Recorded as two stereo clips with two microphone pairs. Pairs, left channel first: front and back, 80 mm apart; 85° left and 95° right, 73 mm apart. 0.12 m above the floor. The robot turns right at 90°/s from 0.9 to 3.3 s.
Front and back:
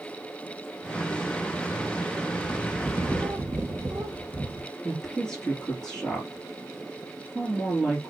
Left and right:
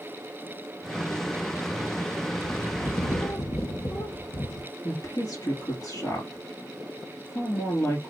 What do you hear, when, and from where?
2.4 s a bird: 40° left, 0.7 m; by 4.7 s 115° left, 0.7 m
4.8 s a woman speaking: 75° left, 3 m